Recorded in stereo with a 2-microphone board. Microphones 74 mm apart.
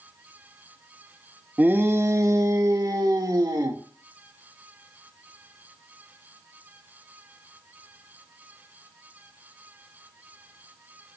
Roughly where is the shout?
Right.